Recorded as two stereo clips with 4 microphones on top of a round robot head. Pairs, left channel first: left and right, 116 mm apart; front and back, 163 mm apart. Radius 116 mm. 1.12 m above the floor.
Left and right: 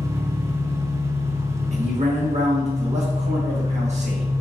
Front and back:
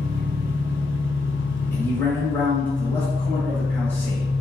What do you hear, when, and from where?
0.0 s an engine running: 50° right, 1.8 m
1.7 s a man speaking: 80° right, 1.4 m